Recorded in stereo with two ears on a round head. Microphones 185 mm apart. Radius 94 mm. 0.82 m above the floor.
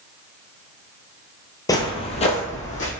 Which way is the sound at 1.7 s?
15° left (ahead or behind).